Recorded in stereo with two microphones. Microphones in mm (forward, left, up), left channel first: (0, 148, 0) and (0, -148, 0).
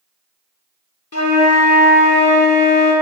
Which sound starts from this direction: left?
A flute, at 1.1 s.